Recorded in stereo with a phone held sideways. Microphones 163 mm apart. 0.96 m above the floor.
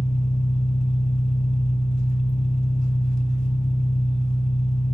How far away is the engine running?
About 1.3 m.